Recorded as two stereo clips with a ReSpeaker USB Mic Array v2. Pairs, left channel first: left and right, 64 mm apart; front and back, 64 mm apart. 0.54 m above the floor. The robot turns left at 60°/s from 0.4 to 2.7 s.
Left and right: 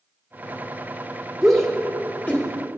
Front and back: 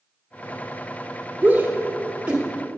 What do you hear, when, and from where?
1.4 s a shout: straight behind, 1.3 m; by 2.5 s 120° left, 1.3 m